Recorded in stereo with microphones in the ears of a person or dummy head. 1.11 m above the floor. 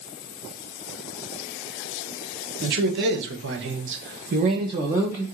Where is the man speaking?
55° right (ahead or behind), 1.1 m; by 5.2 s 5° right (ahead or behind), 0.8 m.